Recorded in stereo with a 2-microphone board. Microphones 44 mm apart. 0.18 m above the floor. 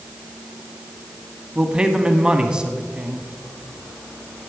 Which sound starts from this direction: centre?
A man speaking, at 1.6 s.